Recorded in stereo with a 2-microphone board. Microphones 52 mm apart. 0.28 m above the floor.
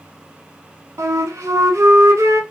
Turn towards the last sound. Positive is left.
turn(degrees=-75)  # may be behind; listen again after turning